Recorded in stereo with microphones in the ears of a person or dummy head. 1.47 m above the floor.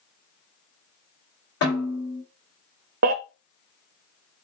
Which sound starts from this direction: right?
A baby crying, at 3.0 s.